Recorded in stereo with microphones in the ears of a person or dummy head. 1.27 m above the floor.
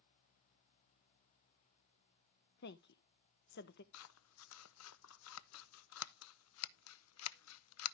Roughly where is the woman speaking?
Left.